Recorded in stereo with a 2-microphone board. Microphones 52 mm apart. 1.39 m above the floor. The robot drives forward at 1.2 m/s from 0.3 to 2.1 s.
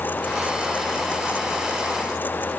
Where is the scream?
No scream in this recording.